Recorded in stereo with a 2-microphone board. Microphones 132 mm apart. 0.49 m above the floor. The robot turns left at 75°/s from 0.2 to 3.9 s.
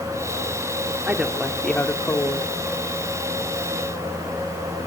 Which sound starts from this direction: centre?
A woman speaking, at 1.1 s.